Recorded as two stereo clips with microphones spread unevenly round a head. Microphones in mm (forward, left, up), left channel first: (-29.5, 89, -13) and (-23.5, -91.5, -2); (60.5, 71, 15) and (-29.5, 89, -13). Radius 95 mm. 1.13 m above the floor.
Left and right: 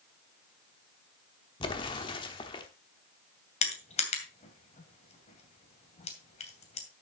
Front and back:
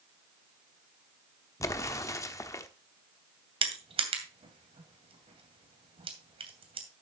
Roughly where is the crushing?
Behind left.